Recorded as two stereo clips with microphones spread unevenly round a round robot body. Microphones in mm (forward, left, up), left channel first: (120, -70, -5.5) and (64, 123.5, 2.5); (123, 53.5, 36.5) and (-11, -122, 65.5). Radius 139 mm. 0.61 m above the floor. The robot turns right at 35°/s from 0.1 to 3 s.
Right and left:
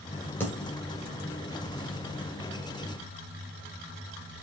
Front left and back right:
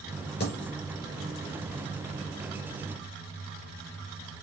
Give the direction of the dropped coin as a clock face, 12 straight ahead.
12 o'clock.